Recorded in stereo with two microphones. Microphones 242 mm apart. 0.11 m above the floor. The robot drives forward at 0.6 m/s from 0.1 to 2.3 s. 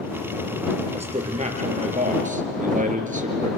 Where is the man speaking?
25° right (ahead or behind), 2.5 m; by 3.5 s 30° right (ahead or behind), 2 m.